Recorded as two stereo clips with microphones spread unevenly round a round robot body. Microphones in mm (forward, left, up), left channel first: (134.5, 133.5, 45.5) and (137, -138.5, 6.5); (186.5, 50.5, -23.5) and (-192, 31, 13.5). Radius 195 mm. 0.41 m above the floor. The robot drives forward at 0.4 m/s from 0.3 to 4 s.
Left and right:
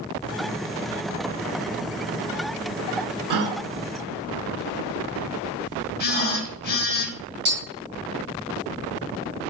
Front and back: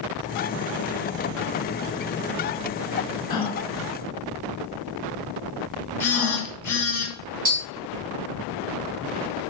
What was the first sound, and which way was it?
A gasp, 75° right.